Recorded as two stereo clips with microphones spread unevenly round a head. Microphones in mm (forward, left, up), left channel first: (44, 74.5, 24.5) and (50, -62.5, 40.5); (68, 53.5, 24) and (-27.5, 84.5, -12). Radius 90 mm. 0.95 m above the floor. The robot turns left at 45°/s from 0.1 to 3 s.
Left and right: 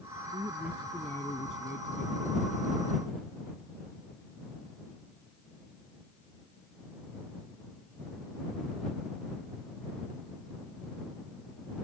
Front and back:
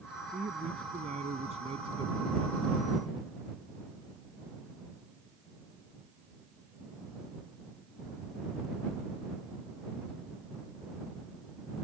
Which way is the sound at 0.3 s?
155° right.